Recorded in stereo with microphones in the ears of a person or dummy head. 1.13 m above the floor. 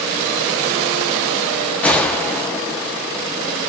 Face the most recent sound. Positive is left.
turn(degrees=5)  # may be behind; listen again after turning